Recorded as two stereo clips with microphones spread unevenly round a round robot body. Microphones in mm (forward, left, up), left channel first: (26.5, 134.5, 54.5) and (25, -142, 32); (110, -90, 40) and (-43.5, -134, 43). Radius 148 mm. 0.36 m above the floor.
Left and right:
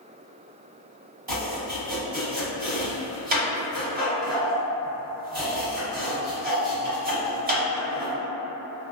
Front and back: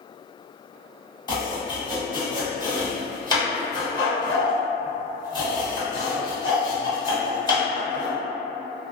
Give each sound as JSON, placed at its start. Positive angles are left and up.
{"t": 1.3, "sound": "chopping", "azimuth_deg": -40, "distance_m": 1.7}